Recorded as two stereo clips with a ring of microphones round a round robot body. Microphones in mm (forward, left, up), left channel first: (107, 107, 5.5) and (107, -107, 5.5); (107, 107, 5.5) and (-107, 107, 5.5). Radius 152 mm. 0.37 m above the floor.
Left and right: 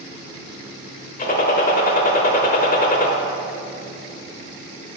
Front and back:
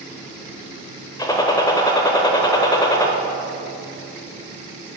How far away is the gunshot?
About 1.1 m.